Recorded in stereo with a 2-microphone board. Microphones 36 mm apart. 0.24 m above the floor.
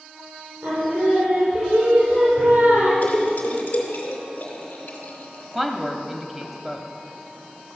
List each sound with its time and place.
0.6 s singing: 65° right (ahead or behind), 5 m
3.0 s a splash: 55° left (ahead or behind), 2.5 m
5.5 s a woman speaking: 10° right (ahead or behind), 0.9 m